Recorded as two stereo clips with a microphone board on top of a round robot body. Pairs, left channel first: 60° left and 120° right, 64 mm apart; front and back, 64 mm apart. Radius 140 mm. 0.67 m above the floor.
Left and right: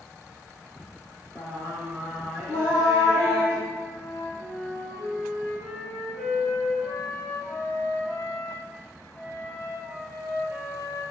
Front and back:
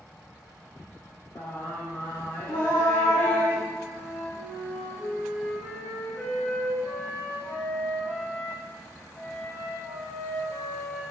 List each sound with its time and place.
1.4 s singing: 5° left, 1.5 m
3.7 s a flute: 10° right, 0.8 m